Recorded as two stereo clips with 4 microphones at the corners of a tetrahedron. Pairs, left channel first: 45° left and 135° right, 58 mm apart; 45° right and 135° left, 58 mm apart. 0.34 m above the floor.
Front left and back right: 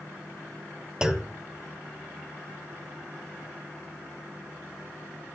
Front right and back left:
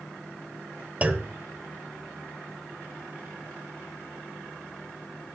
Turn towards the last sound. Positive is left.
turn(degrees=155)